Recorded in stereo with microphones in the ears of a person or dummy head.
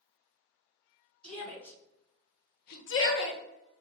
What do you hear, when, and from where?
1.2 s a shout: 5° left (ahead or behind), 1.5 m; by 3.4 s 55° left (ahead or behind), 0.7 m